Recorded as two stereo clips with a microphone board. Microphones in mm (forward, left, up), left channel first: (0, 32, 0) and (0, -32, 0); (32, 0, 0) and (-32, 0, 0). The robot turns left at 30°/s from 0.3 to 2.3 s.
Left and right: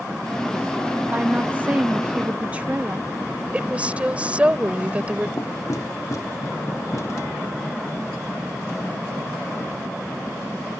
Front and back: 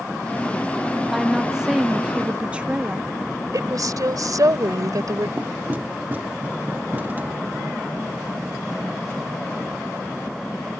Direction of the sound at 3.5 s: 160° right.